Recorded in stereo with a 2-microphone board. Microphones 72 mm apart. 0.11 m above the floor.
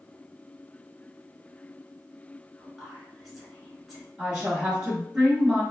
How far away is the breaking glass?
I don't hear breaking glass.